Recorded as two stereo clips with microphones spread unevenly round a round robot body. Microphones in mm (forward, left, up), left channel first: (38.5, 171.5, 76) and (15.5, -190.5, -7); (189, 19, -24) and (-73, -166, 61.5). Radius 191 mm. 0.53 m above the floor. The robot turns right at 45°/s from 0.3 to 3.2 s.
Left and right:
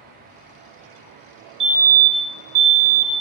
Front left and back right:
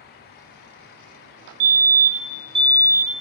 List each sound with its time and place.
1.6 s a fire alarm: 155° right, 2.5 m; by 3.2 s 85° right, 2.5 m